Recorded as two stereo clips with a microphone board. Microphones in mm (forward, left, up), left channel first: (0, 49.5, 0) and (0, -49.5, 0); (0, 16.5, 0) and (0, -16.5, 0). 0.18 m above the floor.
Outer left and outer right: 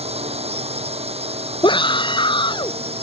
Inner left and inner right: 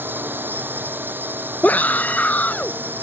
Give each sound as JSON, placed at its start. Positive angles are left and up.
{"t": 0.0, "sound": "a drone", "side_deg": -80}
{"t": 1.6, "sound": "a scream", "side_deg": 50}